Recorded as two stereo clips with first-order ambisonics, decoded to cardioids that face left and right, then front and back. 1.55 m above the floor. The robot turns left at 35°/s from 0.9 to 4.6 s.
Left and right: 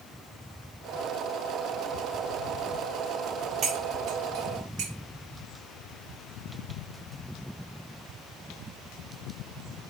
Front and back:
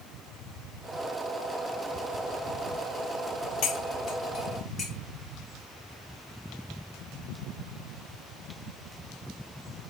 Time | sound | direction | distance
3.6 | cutlery clinking | 30° right | 1.8 m